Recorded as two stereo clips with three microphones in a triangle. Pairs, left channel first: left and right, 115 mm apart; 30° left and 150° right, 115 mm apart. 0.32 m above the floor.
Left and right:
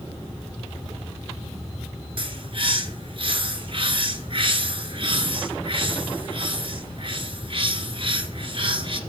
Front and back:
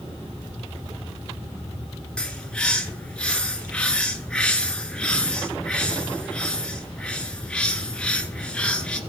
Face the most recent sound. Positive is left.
turn(degrees=-50)